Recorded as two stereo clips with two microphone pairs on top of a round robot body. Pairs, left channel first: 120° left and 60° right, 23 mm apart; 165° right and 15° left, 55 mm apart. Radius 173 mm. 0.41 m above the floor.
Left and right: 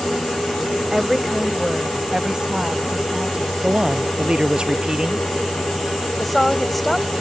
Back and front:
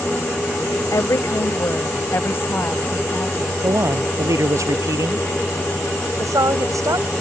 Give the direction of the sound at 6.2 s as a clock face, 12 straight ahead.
11 o'clock.